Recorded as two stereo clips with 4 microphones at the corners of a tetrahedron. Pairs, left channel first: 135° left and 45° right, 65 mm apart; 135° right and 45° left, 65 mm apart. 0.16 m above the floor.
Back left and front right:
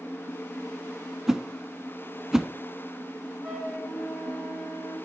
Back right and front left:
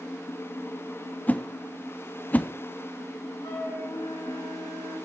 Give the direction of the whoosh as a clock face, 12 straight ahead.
4 o'clock.